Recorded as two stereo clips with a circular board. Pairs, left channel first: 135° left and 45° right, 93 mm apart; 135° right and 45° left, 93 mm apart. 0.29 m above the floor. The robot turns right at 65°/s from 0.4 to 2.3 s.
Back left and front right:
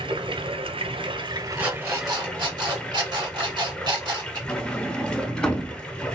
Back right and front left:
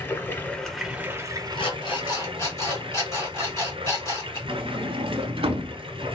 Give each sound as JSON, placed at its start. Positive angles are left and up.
{"t": 0.0, "sound": "running water", "azimuth_deg": -65, "distance_m": 1.0}
{"t": 1.6, "sound": "an alarm clock", "azimuth_deg": -125, "distance_m": 2.0}
{"t": 4.5, "sound": "a sliding door", "azimuth_deg": 55, "distance_m": 0.7}